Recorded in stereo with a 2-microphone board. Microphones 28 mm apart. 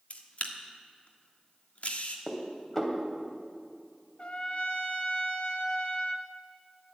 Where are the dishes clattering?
15° left (ahead or behind), 2.5 m.